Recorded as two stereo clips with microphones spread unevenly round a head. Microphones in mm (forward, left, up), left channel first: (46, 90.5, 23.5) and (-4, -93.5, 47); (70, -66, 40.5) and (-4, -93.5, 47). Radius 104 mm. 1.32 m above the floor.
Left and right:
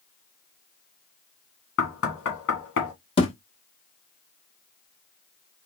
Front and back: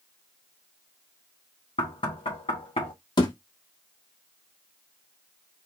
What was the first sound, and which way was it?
Knocking, 60° left.